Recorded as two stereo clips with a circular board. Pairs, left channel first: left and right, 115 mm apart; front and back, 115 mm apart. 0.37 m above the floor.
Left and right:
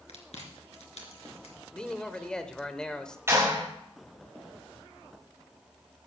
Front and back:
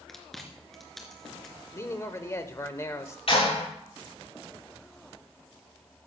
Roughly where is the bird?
I don't hear a bird.